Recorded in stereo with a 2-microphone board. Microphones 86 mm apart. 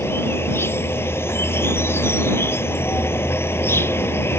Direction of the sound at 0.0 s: 25° left (ahead or behind).